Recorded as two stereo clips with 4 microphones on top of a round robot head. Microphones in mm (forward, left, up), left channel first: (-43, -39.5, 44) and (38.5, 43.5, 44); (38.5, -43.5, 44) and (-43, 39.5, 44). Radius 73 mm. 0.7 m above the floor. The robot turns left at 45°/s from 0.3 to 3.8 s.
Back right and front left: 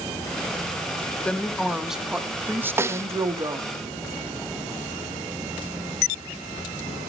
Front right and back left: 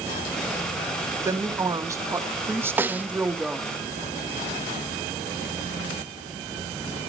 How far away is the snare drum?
About 0.6 m.